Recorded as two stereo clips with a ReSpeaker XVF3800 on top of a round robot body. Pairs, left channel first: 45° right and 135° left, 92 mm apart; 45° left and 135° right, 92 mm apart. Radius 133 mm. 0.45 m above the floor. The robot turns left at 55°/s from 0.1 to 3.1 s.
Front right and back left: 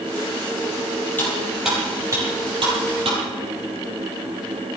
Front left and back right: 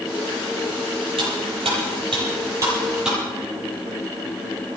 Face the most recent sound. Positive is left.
turn(degrees=140)